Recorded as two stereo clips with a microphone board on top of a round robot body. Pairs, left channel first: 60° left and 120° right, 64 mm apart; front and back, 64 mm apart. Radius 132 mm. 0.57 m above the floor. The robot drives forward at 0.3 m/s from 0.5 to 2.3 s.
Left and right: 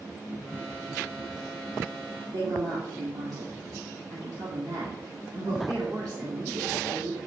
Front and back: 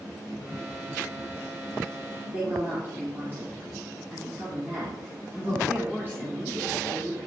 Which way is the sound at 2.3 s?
125° right.